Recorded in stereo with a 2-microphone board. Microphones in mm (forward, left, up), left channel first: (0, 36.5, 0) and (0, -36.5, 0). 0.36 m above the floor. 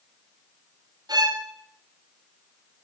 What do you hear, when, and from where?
1.1 s a violin: 60° right (ahead or behind), 1.7 m